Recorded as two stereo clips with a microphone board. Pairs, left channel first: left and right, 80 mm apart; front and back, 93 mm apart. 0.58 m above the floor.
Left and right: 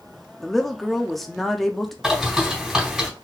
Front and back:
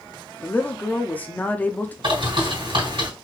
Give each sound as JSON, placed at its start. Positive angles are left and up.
{"t": 0.4, "sound": "a woman speaking", "azimuth_deg": 5, "distance_m": 0.6}
{"t": 2.0, "sound": "a bird", "azimuth_deg": -175, "distance_m": 3.5}